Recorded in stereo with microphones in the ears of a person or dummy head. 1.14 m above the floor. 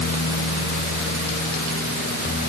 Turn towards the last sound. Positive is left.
No sound to turn to.